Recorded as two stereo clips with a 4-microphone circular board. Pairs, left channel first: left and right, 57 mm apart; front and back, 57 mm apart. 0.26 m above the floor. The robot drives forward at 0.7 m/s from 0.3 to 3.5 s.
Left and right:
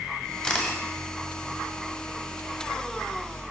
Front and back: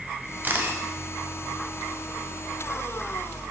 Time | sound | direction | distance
0.4 | a camera shutter | 155° left | 1.5 m